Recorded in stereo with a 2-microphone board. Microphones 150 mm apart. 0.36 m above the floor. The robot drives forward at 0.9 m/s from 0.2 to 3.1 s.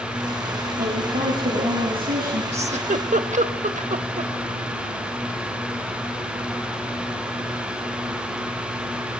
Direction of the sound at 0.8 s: 80° right.